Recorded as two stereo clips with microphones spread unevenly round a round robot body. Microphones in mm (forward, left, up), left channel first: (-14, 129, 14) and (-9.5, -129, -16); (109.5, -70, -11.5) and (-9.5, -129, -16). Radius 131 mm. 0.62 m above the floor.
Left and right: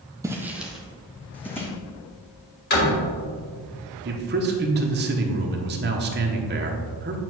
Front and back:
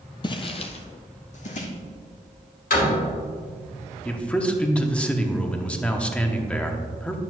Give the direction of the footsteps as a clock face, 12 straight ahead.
12 o'clock.